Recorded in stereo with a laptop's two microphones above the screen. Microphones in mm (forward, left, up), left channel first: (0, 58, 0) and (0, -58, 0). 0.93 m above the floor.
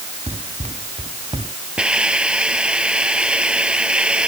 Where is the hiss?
10° right (ahead or behind).